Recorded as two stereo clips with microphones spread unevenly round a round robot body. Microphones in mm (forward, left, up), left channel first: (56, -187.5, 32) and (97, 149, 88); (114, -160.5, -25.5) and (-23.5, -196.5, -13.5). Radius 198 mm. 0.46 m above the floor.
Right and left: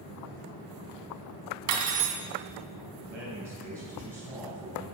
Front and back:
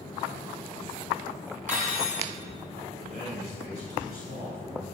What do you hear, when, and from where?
1.7 s cutlery clinking: 130° left, 0.8 m
3.0 s a man speaking: 175° right, 3 m